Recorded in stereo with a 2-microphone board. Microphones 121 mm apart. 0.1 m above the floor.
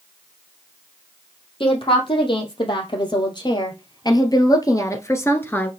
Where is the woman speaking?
45° left (ahead or behind), 3 m; by 5.7 s 15° left (ahead or behind), 1.2 m.